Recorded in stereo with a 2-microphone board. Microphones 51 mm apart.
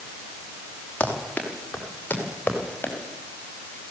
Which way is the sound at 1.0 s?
25° left (ahead or behind).